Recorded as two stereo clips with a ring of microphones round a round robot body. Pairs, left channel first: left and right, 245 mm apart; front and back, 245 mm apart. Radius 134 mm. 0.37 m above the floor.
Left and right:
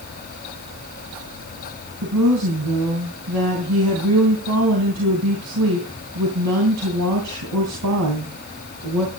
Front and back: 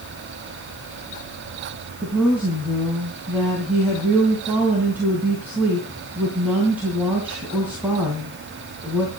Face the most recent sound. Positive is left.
turn(degrees=-95)